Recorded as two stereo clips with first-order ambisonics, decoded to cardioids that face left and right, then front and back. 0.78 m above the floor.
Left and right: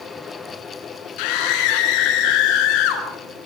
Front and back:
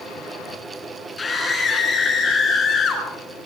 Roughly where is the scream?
Left.